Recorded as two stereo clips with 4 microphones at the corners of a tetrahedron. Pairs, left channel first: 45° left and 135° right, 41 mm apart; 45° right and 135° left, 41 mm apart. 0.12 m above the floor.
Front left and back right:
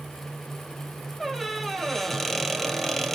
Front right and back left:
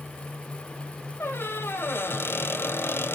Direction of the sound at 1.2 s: 40° right.